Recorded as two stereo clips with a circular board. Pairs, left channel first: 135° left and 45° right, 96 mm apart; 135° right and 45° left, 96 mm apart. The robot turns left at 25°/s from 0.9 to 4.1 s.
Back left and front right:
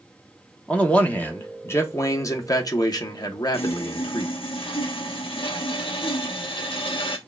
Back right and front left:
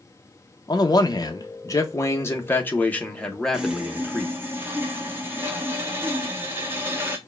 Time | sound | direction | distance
0.7 | a man speaking | 155° right | 1.1 m
3.5 | sawing | 125° left | 1.1 m